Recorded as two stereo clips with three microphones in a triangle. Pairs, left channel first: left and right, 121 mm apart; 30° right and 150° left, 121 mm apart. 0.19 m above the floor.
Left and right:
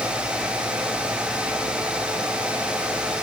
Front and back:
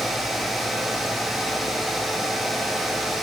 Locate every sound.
Only background noise.